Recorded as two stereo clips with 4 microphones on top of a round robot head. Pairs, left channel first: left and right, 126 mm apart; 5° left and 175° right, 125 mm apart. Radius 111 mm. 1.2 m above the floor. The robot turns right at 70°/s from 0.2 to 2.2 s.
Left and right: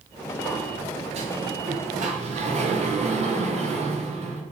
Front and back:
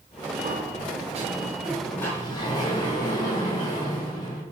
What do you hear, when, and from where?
0.4 s a sliding door: straight behind, 3 m; by 4.4 s 60° right, 3 m